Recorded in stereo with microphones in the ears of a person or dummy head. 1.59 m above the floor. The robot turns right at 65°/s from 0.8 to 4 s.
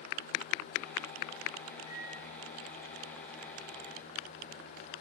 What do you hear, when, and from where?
1.9 s a microwave: 45° left (ahead or behind), 2 m; by 2.2 s 65° left (ahead or behind), 2 m